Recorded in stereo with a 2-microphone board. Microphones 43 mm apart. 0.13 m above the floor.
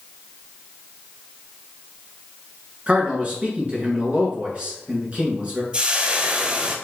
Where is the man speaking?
30° right (ahead or behind), 2 m.